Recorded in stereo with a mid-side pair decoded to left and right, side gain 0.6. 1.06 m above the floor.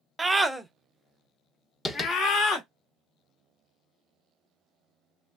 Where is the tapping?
20° left, 1.0 m.